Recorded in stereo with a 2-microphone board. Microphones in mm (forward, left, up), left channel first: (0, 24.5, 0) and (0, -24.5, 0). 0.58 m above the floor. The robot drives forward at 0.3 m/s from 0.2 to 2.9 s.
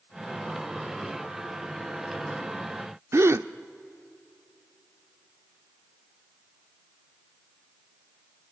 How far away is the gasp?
About 0.5 m.